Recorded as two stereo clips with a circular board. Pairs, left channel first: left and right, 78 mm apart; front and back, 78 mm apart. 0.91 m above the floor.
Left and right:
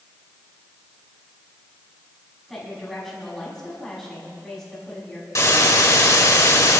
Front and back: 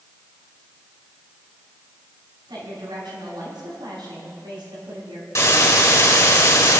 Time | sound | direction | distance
2.5 | a woman speaking | 175° left | 6 m
5.3 | a hiss | 45° left | 2 m